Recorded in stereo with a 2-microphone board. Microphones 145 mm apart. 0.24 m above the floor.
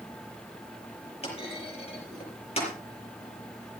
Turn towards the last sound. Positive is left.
turn(degrees=45)  # may be behind; listen again after turning